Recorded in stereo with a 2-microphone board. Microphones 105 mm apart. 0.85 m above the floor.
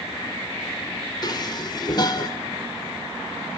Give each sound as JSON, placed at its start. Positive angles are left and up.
{"t": 1.2, "sound": "dishes clattering", "side_deg": 40, "distance_m": 1.9}